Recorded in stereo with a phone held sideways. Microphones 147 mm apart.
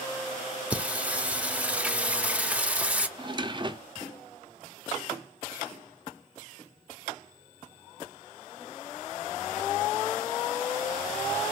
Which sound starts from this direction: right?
A drawer, at 3.2 s.